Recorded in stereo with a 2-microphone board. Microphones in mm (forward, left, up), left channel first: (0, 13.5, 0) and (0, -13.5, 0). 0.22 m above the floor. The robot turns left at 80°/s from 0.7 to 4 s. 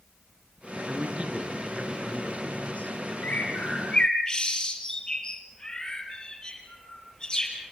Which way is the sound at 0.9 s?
95° right.